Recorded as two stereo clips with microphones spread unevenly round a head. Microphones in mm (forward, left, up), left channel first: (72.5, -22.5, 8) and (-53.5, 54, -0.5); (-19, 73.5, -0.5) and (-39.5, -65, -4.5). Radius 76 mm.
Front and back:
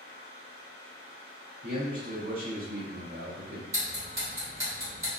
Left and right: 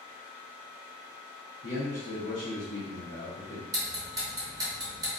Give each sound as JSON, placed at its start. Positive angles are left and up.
{"t": 0.0, "sound": "a fan", "azimuth_deg": 110, "distance_m": 1.7}
{"t": 1.6, "sound": "a man speaking", "azimuth_deg": 105, "distance_m": 0.7}
{"t": 3.7, "sound": "ticking", "azimuth_deg": -145, "distance_m": 1.4}